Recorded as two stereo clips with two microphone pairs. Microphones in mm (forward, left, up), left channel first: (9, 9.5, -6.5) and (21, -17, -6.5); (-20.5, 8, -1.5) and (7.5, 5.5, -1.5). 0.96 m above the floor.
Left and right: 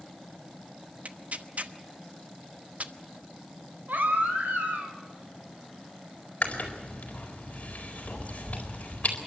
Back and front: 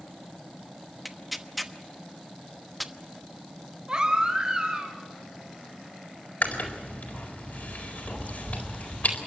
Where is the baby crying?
70° right, 3.5 m.